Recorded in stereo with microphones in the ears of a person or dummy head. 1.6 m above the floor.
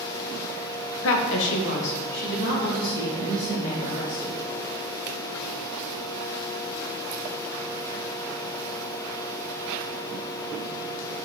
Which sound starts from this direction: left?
A woman speaking, at 1.0 s.